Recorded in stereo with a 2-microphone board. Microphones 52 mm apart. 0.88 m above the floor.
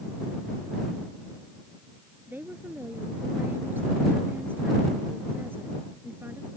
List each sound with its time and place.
2.3 s a woman speaking: 40° right (ahead or behind)